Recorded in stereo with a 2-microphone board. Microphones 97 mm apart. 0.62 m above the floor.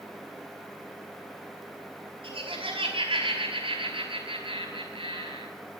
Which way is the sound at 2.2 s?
55° right (ahead or behind).